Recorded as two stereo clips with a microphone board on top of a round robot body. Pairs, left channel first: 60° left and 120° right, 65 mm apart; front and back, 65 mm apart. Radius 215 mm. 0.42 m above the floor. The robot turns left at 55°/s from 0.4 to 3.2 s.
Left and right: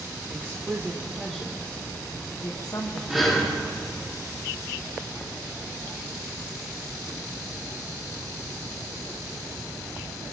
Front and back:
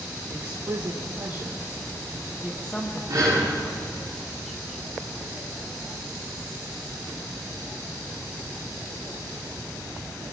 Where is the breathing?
155° left, 6.5 m; by 3.5 s 150° left, 6.5 m.